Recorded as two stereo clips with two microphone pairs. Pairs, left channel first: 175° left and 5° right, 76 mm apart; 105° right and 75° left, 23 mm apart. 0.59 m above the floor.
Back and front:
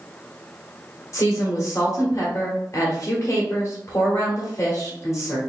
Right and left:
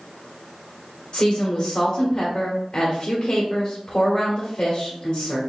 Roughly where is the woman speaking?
Behind right.